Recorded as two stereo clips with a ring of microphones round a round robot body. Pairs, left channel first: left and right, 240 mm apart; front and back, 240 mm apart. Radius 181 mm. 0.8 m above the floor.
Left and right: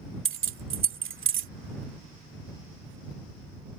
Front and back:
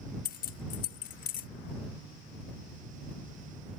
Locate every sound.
0.2 s keys jangling: 60° right